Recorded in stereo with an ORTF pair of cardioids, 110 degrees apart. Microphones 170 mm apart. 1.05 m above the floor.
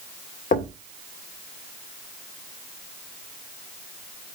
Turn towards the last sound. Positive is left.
turn(degrees=50)